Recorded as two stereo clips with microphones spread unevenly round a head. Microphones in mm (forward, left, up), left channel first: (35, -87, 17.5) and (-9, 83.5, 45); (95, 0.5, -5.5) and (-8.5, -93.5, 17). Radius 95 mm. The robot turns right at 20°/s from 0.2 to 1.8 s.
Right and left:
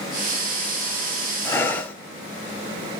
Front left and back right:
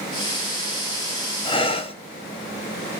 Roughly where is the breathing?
Ahead.